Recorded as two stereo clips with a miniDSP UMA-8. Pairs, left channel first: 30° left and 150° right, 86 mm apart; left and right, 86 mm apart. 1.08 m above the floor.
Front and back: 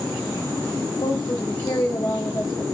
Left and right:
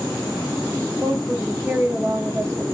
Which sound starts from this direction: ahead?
A woman speaking, at 1.0 s.